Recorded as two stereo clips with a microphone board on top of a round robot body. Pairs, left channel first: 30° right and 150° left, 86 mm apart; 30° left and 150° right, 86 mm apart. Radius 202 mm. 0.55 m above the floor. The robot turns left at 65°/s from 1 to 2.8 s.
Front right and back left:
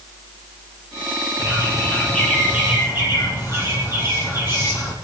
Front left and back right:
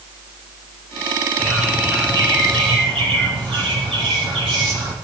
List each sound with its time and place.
1.4 s a bird: 55° right, 6 m; by 5.0 s 150° right, 6 m